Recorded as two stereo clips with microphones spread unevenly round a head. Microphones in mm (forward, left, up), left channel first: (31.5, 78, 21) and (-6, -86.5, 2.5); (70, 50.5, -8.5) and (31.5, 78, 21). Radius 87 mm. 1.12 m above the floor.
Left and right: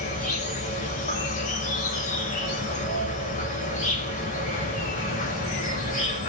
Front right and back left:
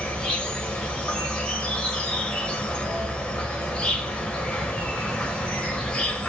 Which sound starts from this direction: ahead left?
An insect, at 0.0 s.